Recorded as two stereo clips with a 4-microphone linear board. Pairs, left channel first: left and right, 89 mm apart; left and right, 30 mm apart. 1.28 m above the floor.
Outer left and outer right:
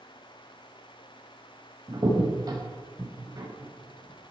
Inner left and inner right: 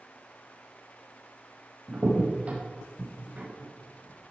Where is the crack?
45° right (ahead or behind), 5.5 m.